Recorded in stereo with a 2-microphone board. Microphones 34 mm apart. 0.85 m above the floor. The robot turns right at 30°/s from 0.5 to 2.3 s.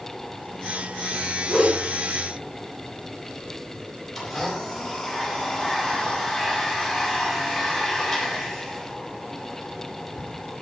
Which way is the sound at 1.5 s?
50° right (ahead or behind).